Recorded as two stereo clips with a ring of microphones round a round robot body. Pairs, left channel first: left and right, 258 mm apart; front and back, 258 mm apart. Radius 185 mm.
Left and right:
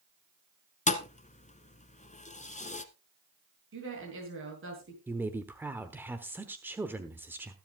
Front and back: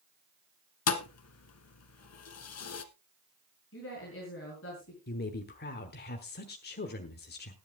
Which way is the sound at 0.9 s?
25° left.